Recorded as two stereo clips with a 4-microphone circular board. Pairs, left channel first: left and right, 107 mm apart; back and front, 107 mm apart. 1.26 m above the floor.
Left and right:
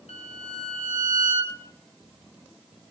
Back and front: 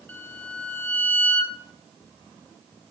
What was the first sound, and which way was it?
A violin, 110° left.